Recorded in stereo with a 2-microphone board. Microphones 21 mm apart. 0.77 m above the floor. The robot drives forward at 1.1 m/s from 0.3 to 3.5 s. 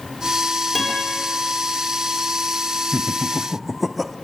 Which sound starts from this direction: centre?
A guitar, at 0.8 s.